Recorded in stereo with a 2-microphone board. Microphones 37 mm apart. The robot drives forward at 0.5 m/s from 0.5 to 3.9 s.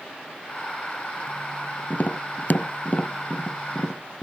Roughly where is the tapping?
Left.